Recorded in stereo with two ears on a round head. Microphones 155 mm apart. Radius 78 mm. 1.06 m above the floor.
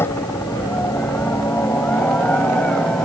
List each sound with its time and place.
0.0 s a helicopter: 15° left (ahead or behind); by 3.0 s 5° left (ahead or behind)